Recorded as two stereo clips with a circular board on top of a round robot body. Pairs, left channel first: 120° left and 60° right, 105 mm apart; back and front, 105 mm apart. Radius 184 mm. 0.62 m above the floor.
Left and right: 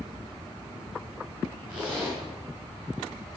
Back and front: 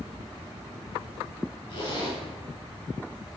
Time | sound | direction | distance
1.7 | a zipper | 145° right | 6 m